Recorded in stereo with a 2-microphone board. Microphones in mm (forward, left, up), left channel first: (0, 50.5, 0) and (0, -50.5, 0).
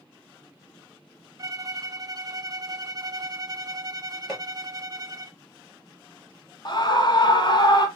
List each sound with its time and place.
1.4 s a violin: 35° right (ahead or behind), 0.6 m
4.3 s hammering: 5° left (ahead or behind), 1.9 m
6.7 s a scream: 50° left (ahead or behind), 1.4 m